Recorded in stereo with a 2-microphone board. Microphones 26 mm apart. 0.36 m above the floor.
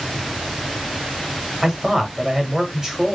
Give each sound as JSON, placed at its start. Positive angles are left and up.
{"t": 1.6, "sound": "a man speaking", "side_deg": -25, "distance_m": 1.5}